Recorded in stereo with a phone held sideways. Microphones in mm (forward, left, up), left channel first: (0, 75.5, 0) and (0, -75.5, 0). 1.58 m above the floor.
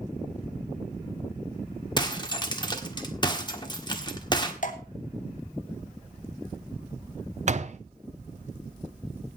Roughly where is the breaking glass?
Left.